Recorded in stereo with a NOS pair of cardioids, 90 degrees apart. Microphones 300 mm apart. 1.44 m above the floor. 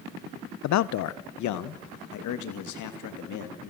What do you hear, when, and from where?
0.6 s a man speaking: 65° left, 0.6 m; by 3.7 s 75° left, 2.5 m